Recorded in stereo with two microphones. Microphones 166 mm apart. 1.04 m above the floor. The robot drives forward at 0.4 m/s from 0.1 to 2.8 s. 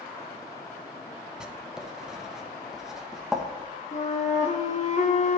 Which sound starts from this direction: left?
A flute, at 3.9 s.